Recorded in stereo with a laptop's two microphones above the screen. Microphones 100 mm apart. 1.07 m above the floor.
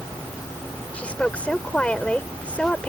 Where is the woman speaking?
10° left (ahead or behind).